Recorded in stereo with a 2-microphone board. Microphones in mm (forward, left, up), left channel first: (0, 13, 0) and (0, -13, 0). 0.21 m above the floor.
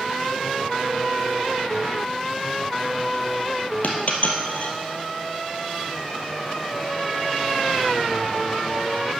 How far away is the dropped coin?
About 1.9 m.